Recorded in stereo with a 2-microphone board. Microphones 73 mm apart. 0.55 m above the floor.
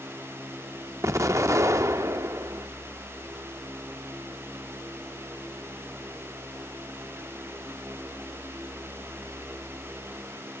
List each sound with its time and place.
1.0 s an explosion: 45° right (ahead or behind), 0.7 m